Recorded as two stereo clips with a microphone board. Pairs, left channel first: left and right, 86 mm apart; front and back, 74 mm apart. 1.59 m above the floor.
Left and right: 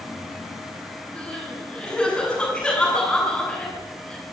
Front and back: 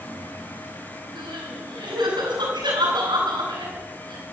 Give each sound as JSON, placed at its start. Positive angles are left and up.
{"t": 1.1, "sound": "crying", "azimuth_deg": 170, "distance_m": 8.5}